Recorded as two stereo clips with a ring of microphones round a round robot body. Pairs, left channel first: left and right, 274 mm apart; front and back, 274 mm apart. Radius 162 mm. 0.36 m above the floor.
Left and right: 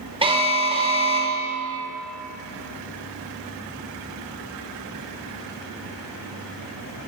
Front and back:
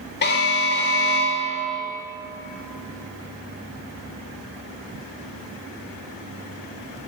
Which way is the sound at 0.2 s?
30° right.